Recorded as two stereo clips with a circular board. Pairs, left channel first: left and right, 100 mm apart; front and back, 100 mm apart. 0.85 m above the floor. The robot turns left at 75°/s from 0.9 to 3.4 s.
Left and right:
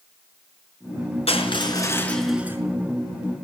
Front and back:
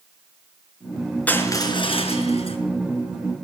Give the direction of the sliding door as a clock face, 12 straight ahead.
I don't hear a sliding door.